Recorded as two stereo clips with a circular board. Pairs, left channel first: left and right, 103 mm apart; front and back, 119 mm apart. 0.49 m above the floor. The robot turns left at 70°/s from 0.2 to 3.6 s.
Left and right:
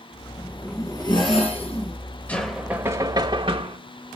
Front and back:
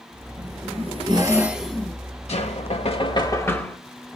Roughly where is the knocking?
Ahead.